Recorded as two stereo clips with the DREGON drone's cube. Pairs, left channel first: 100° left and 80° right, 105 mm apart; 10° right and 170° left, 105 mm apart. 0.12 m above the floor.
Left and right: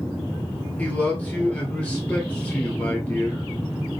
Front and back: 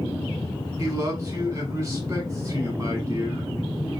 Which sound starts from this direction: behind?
A man speaking, at 0.8 s.